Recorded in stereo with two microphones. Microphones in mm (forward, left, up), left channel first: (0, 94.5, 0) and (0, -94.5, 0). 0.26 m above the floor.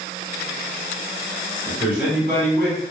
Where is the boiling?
No boiling in this recording.